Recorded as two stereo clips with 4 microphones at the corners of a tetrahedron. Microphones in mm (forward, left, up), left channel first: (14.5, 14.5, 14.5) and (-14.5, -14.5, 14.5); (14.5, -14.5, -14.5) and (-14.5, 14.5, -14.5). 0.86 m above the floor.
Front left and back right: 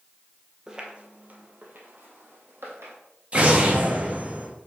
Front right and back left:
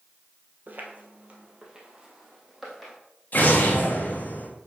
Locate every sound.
0.7 s footsteps: 155° left, 1.3 m; by 3.0 s 135° right, 2.5 m
3.3 s an explosion: 80° right, 1.3 m